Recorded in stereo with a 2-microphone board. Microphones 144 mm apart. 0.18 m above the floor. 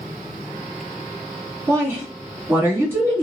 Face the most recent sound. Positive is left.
turn(degrees=-20)  # may be behind; listen again after turning